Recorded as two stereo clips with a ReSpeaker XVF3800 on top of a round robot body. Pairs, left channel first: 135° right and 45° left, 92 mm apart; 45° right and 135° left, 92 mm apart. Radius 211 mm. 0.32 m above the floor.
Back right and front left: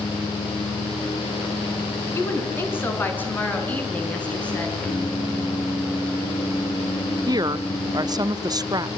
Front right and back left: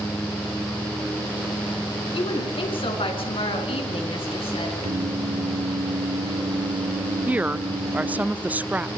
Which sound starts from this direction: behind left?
Singing, at 4.8 s.